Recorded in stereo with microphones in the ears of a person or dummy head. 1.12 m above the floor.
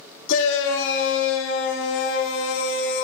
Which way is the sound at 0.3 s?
65° left (ahead or behind).